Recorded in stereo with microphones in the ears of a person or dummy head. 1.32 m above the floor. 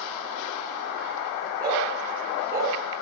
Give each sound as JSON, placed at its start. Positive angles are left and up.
{"t": 1.6, "sound": "a dog barking", "side_deg": -20, "distance_m": 8.5}